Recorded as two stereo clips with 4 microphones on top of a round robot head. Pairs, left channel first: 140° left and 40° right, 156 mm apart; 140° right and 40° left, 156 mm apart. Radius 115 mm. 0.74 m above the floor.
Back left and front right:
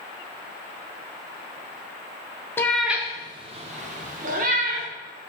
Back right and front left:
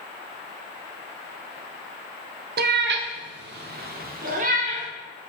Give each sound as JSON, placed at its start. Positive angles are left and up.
{"t": 2.6, "sound": "a cat meowing", "azimuth_deg": 65, "distance_m": 0.5}